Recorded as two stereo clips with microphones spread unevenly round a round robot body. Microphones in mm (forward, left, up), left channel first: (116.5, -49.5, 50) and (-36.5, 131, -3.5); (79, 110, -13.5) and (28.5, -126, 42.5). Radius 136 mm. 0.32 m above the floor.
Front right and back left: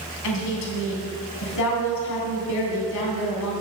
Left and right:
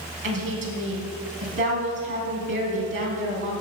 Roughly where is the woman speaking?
Ahead right.